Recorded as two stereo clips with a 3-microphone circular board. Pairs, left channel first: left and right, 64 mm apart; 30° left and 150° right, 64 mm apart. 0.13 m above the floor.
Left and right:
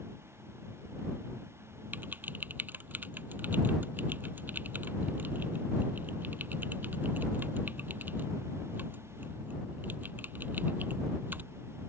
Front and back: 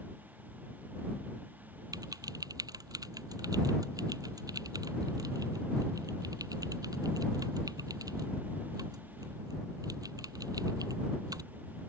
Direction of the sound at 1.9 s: 150° right.